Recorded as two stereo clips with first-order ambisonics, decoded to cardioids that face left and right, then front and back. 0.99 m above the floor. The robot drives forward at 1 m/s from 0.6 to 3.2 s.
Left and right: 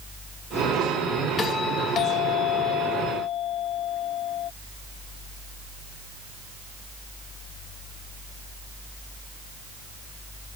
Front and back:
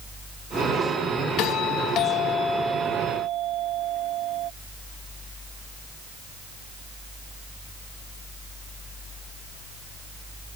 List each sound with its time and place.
1.4 s a doorbell: 25° left; by 4.5 s 135° left